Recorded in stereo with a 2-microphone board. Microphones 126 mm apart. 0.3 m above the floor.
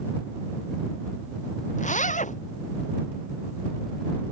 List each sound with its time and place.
1.8 s a zipper: 75° left (ahead or behind)